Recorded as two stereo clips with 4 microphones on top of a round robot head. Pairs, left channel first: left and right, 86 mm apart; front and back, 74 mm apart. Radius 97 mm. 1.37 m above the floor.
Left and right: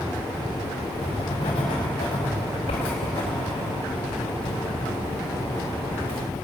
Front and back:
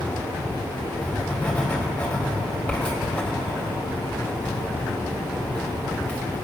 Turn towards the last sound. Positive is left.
turn(degrees=75)